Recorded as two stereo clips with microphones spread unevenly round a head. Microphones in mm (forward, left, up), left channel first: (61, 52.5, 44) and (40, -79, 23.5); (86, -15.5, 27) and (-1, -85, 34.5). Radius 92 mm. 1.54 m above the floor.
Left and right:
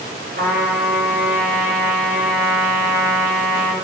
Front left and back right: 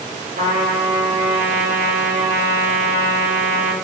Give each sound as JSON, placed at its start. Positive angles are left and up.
{"t": 0.4, "sound": "a trumpet", "azimuth_deg": -135, "distance_m": 4.5}